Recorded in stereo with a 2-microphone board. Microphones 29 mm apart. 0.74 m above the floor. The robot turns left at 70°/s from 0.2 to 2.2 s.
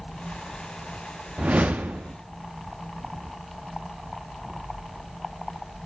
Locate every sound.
1.4 s a whoosh: 55° right, 0.6 m; by 2.1 s 110° right, 0.6 m
4.3 s an explosion: 65° right (ahead or behind), 3.5 m